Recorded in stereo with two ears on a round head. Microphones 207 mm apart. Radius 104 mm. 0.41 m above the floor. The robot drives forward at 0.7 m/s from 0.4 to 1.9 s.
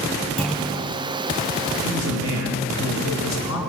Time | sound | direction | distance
0.4 | a clunk | centre (ahead or behind) | 2.5 m
1.8 | a man speaking | 70° left (ahead or behind) | 3.5 m